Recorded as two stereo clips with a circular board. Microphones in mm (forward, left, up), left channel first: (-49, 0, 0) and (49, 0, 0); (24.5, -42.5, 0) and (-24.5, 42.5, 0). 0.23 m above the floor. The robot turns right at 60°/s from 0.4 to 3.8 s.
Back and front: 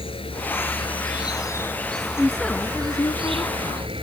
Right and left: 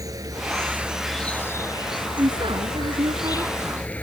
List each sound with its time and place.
0.0 s an insect: 170° left; by 4.0 s 15° left
2.2 s a woman speaking: 85° left; by 3.9 s straight behind